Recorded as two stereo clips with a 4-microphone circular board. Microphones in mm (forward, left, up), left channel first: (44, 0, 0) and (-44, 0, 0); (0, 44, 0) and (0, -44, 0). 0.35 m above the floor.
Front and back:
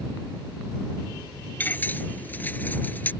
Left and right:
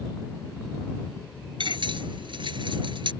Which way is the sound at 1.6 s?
70° right.